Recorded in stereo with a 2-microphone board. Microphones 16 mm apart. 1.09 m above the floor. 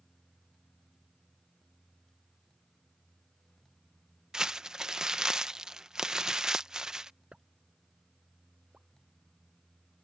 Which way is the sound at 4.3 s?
40° right (ahead or behind).